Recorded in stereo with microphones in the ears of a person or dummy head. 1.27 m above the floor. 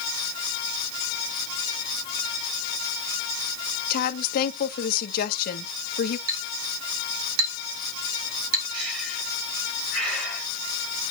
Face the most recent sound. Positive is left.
turn(degrees=-85)